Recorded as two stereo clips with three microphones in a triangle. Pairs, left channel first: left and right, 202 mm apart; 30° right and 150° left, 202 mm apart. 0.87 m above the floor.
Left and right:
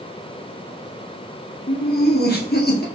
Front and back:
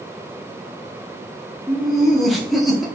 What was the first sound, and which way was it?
Laughter, 60° left.